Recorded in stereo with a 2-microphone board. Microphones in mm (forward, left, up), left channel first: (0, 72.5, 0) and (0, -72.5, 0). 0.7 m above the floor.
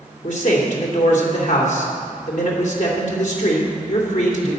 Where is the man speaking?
60° left (ahead or behind), 2.5 m.